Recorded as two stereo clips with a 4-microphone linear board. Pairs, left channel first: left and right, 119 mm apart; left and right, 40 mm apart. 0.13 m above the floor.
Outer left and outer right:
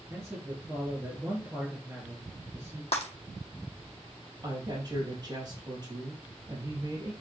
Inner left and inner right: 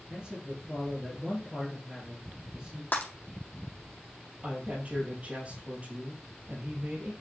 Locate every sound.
0.1 s a man speaking: 25° right (ahead or behind), 3 m
2.9 s breaking glass: 60° left (ahead or behind), 2.0 m
4.4 s a woman speaking: 35° right (ahead or behind), 3.5 m